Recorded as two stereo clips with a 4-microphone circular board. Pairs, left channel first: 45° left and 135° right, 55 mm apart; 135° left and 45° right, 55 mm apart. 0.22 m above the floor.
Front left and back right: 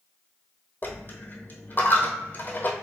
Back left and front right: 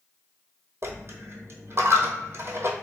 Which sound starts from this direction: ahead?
A dropped coin, at 0.8 s.